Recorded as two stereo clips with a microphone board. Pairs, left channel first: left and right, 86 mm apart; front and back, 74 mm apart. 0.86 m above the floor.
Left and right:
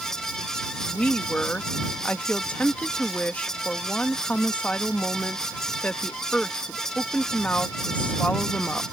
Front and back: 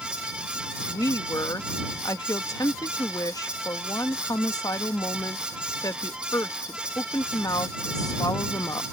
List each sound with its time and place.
0.8 s a woman speaking: 20° left